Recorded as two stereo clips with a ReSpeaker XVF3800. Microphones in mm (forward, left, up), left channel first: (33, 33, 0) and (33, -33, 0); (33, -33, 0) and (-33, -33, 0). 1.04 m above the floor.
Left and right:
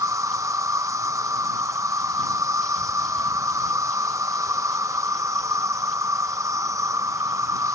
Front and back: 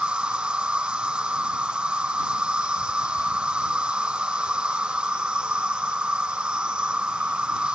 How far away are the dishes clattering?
I don't hear dishes clattering.